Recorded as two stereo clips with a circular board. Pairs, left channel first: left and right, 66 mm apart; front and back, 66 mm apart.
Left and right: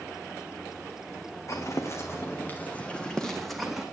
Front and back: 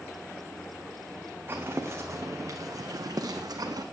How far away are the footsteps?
About 2.5 m.